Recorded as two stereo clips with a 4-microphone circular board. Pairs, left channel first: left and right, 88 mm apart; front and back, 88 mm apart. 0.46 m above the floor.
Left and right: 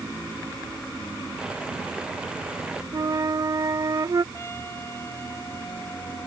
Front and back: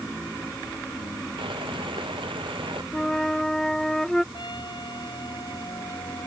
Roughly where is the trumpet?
Ahead left.